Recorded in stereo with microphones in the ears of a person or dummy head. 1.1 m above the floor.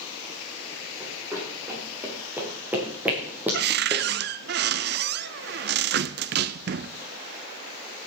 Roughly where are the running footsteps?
Centre.